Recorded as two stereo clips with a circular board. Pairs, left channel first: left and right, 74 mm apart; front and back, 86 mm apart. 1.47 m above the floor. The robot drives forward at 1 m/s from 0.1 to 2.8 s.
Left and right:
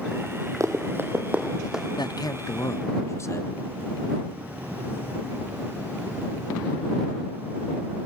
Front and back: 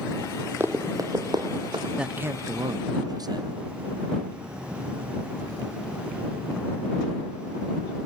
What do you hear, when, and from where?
0.6 s running footsteps: 120° right, 2.5 m; by 1.9 s 170° right, 3 m
2.0 s a man speaking: 95° left, 0.8 m; by 3.6 s 140° left, 1.2 m